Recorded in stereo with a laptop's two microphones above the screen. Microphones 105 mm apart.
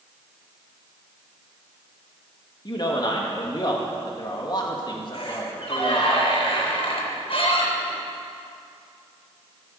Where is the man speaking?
40° left (ahead or behind), 1.7 m.